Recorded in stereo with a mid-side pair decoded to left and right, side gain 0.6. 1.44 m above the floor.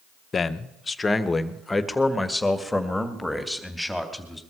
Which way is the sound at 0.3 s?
35° left.